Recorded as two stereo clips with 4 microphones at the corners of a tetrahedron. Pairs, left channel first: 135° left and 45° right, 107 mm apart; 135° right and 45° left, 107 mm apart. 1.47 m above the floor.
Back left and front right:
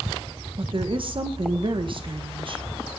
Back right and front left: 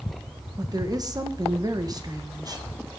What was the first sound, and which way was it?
A woman speaking, 10° right.